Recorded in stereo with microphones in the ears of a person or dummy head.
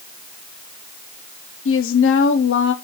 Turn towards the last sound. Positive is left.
turn(degrees=55)  # may be behind; listen again after turning